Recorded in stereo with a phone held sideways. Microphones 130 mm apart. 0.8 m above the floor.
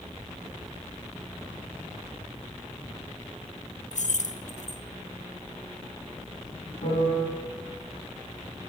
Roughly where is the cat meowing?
No cat meowing in this recording.